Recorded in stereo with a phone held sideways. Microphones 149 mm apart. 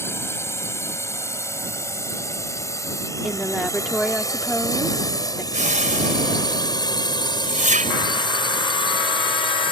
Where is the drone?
20° left (ahead or behind); by 9.7 s 40° left (ahead or behind).